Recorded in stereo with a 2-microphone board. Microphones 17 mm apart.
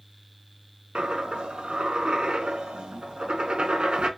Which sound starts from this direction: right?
A dropped coin, at 0.9 s.